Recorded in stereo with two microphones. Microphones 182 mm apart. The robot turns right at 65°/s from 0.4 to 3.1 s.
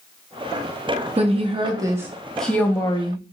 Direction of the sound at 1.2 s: 80° right.